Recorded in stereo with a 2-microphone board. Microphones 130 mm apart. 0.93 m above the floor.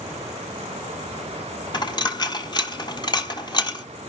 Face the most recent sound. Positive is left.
turn(degrees=35)  # may be behind; listen again after turning